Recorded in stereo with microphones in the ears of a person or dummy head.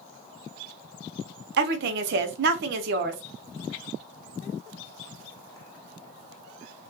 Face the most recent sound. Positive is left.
turn(degrees=-60)  # may be behind; listen again after turning